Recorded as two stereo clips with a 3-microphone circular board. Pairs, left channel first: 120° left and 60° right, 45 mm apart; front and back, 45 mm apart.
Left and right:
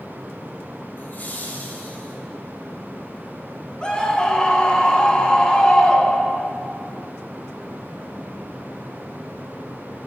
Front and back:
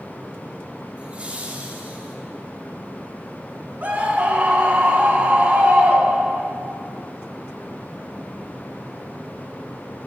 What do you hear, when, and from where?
1.0 s laughter: 130° left, 2 m; by 2.1 s 150° left, 1.9 m
3.8 s a scream: 175° left, 1.8 m